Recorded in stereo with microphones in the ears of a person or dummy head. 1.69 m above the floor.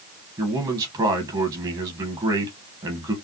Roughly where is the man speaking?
Centre.